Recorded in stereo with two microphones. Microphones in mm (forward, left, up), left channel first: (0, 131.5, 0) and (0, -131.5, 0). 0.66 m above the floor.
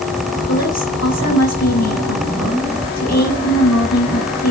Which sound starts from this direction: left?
A woman speaking, at 0.5 s.